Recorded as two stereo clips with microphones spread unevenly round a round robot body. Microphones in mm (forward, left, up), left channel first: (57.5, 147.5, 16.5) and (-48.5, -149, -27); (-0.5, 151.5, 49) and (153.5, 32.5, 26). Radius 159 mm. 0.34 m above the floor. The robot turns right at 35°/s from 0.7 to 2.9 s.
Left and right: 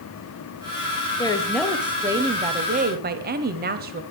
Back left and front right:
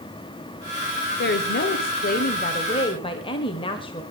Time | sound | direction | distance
1.2 | a woman speaking | 150° left | 1.3 m